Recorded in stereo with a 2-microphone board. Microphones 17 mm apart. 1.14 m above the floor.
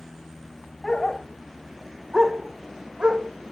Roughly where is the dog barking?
Left.